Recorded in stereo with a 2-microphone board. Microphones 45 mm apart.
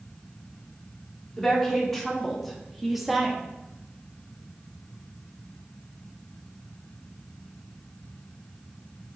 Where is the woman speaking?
10° left (ahead or behind), 2.5 m; by 3.4 s 10° right (ahead or behind), 1.4 m.